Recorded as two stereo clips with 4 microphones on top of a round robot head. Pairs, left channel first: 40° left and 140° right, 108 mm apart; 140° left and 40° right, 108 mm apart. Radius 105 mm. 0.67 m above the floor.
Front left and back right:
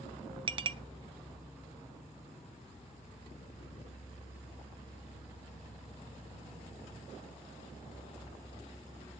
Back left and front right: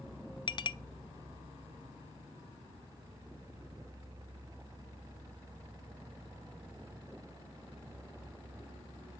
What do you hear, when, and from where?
0.5 s a clink: straight behind, 0.6 m